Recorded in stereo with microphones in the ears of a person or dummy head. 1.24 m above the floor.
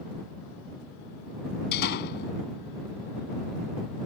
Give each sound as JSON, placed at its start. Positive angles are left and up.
{"t": 1.7, "sound": "a door slam", "side_deg": 50}